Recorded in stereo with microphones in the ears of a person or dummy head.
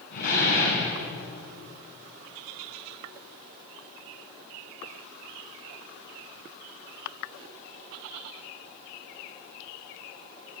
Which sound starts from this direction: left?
A door slam, at 0.1 s.